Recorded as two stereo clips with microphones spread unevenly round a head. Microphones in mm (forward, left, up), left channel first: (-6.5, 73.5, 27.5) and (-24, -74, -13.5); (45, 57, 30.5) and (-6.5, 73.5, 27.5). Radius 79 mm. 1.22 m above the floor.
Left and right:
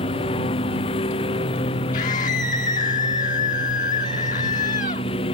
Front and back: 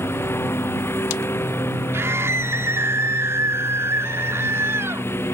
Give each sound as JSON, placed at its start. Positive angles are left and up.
{"t": 0.0, "sound": "a lawn mower", "azimuth_deg": 25}
{"t": 1.9, "sound": "a scream", "azimuth_deg": 125}